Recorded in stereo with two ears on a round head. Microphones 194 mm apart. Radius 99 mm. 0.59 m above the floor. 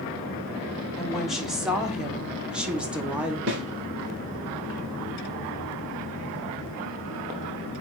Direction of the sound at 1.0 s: Centre (ahead or behind).